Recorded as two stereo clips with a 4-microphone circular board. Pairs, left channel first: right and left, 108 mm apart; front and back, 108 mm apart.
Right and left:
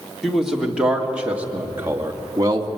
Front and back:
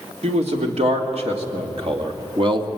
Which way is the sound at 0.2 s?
175° left.